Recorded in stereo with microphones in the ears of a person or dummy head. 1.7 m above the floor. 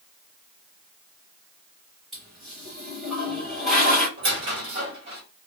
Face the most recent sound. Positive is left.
turn(degrees=-30)  # may be behind; listen again after turning